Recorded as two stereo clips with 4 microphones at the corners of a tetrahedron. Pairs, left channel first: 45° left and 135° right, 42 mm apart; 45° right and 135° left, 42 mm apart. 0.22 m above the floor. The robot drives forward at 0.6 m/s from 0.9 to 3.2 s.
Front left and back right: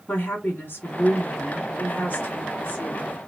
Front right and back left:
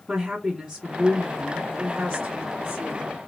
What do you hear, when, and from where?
0.1 s a woman speaking: 65° left, 2.5 m; by 3.1 s 100° left, 2.5 m